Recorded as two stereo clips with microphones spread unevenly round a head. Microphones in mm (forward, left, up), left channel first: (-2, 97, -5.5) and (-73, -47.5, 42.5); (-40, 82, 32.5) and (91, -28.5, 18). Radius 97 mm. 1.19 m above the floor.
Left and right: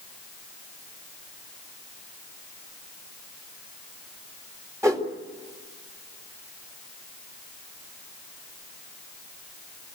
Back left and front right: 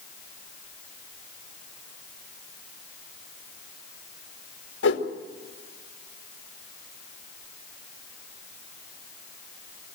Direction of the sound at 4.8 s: 170° left.